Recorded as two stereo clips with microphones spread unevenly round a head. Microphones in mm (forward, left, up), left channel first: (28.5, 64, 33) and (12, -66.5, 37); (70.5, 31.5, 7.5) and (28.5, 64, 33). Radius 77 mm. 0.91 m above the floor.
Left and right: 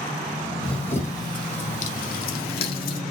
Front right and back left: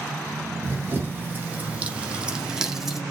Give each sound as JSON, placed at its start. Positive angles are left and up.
{"t": 0.6, "sound": "running footsteps", "azimuth_deg": 170, "distance_m": 1.7}